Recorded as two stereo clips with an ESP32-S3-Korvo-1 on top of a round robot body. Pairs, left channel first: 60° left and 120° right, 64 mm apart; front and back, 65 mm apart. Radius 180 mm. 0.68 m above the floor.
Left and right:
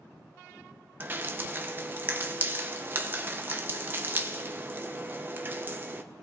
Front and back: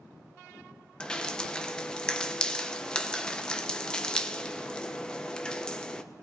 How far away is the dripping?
About 1.0 m.